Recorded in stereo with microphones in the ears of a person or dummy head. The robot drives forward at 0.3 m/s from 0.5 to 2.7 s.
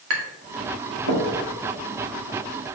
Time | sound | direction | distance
0.1 | tapping | 75° right (ahead or behind) | 2 m